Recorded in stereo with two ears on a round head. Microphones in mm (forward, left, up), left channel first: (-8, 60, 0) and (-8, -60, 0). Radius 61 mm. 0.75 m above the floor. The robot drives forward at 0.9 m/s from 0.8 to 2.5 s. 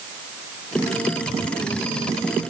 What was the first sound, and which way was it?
Only background noise.